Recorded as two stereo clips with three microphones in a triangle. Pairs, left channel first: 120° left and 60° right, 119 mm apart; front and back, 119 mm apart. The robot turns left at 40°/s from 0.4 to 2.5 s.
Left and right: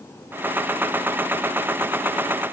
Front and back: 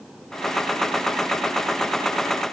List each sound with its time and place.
Only background noise.